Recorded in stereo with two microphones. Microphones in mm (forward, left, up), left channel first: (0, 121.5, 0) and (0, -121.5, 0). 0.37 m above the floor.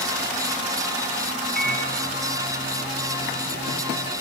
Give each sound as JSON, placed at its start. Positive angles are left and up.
{"t": 1.6, "sound": "a microwave", "side_deg": -40, "distance_m": 4.0}